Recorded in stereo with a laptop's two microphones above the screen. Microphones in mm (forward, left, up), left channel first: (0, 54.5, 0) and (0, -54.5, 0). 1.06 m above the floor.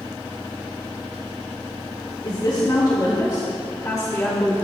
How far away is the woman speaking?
About 2.5 m.